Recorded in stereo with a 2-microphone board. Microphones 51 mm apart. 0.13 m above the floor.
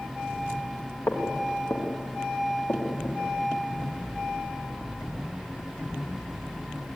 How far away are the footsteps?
About 5.5 m.